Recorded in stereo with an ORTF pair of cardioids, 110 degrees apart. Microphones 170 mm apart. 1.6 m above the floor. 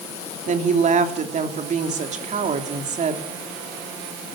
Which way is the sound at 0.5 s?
45° right.